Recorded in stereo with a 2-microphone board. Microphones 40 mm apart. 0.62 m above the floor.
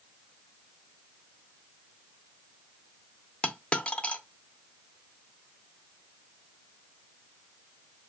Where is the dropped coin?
30° left (ahead or behind), 0.5 m.